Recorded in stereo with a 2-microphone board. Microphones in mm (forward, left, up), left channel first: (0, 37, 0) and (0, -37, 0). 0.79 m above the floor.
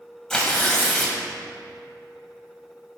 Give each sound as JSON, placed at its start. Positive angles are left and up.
{"t": 0.3, "sound": "tearing paper", "side_deg": 10, "distance_m": 1.4}